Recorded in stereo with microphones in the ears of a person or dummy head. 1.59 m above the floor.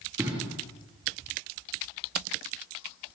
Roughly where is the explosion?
Right.